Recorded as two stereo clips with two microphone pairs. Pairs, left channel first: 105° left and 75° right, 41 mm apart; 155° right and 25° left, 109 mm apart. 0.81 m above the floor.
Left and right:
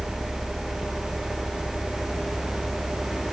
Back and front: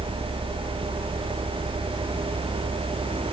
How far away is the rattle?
No rattle in this recording.